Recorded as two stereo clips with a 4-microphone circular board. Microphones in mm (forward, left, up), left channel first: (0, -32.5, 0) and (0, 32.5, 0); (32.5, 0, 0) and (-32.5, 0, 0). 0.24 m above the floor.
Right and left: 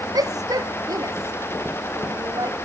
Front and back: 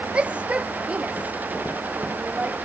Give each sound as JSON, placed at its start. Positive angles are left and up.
{"t": 0.1, "sound": "a shout", "azimuth_deg": 105}